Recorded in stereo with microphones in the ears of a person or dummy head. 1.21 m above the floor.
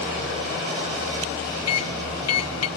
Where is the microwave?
75° left (ahead or behind), 1.0 m.